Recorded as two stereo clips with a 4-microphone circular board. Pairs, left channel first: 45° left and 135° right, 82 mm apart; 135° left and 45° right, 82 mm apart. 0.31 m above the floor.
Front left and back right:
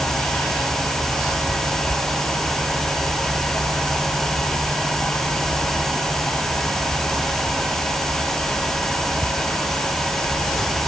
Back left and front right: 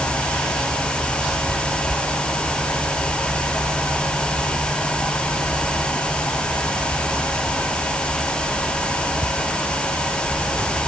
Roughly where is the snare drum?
I don't hear a snare drum.